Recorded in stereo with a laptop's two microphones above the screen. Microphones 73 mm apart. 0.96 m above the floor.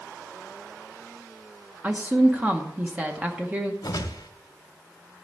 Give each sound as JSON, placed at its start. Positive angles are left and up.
{"t": 1.8, "sound": "a woman speaking", "side_deg": -20, "distance_m": 0.9}
{"t": 3.8, "sound": "a whoosh", "side_deg": 70, "distance_m": 1.2}